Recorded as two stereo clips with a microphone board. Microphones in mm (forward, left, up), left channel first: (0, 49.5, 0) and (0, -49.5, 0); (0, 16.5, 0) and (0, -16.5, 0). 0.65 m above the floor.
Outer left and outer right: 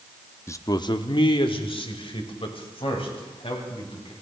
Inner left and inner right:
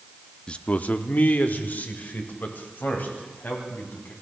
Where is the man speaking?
25° left (ahead or behind), 0.6 m; by 4.1 s 70° left (ahead or behind), 4 m.